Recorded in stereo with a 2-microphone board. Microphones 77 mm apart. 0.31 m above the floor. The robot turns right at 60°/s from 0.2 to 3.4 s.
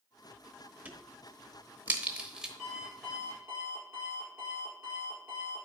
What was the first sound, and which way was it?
A crack, 25° right (ahead or behind).